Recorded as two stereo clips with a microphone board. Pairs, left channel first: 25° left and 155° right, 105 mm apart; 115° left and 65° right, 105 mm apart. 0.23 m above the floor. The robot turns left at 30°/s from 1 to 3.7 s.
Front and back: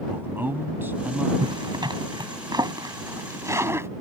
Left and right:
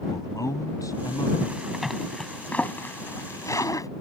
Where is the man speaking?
145° left; by 1.3 s 135° left.